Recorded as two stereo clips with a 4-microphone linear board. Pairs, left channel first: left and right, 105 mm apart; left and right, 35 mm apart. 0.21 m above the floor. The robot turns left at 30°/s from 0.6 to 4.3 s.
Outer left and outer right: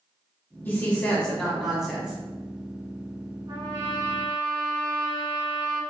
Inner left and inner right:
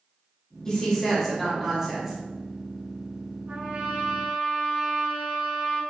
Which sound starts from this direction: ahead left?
A woman speaking, at 0.7 s.